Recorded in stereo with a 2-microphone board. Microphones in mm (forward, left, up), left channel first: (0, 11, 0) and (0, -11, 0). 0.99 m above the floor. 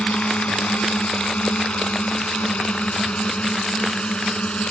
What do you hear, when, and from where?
0.0 s a drone: 80° left; by 4.7 s 70° left (ahead or behind)